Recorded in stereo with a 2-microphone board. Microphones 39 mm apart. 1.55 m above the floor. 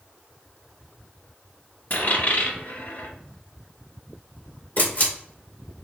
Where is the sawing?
No sawing in this recording.